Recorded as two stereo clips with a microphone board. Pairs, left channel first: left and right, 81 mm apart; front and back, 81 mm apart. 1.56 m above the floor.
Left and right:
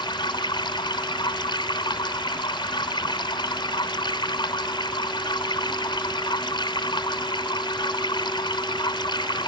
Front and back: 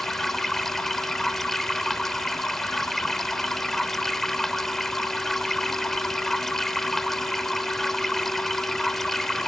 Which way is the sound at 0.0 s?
85° left.